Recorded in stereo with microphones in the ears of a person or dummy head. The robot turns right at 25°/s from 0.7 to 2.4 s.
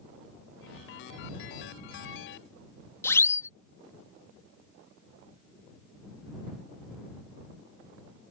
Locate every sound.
3.0 s a siren: 15° left (ahead or behind)